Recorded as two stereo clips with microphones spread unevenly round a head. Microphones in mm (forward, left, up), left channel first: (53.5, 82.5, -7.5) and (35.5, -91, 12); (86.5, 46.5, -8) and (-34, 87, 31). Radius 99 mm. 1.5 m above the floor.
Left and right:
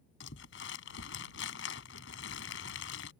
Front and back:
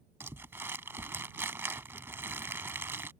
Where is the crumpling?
100° left.